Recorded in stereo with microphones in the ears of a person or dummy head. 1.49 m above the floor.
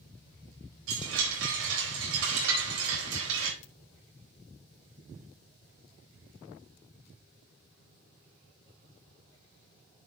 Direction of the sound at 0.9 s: 85° right.